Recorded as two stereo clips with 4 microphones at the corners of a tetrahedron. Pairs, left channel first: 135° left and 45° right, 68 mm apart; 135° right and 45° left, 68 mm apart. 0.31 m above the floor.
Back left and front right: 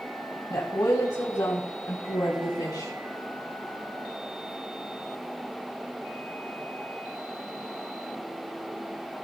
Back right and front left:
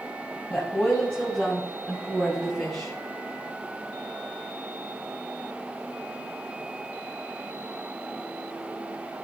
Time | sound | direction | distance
0.5 | a woman speaking | 160° left | 1.9 m